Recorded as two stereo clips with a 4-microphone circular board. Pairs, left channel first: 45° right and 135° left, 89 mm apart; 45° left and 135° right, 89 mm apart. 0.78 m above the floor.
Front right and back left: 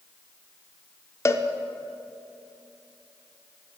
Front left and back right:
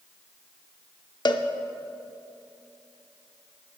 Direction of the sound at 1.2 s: 10° left.